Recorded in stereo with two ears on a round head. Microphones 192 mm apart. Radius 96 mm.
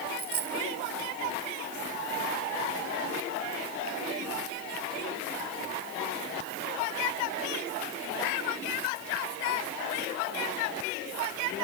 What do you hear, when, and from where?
0.2 s a dropped coin: 50° right (ahead or behind)